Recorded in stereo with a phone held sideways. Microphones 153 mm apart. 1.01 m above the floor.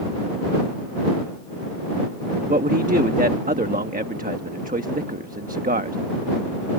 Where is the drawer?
No drawer in this recording.